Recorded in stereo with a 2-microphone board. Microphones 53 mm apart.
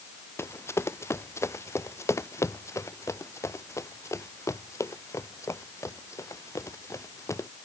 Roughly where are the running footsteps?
Left.